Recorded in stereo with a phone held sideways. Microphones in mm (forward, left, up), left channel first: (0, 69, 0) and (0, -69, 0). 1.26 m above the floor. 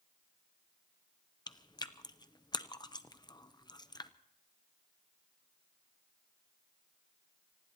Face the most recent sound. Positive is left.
turn(degrees=30)  # may be behind; listen again after turning